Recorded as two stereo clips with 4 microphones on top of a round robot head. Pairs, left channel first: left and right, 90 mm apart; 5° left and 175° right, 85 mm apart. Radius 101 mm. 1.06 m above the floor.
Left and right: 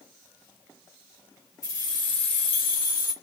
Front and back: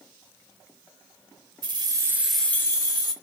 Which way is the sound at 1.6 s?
155° left.